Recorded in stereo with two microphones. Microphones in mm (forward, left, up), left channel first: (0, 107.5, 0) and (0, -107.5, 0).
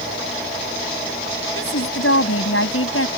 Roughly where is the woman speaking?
Left.